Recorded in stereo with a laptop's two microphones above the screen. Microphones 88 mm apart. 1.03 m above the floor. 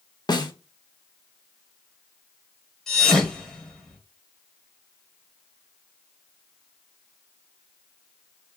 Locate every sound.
0.3 s a snare drum: 55° left (ahead or behind), 0.8 m
2.9 s a thud: 5° left (ahead or behind), 1.5 m